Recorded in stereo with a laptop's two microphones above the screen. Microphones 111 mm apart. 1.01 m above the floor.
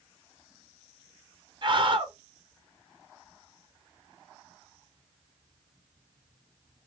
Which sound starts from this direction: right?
A scream, at 1.6 s.